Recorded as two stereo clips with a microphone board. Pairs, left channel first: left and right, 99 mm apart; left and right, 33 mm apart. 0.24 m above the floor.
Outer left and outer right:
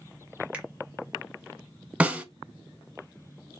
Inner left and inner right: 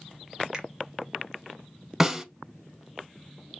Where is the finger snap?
15° right (ahead or behind), 0.9 m.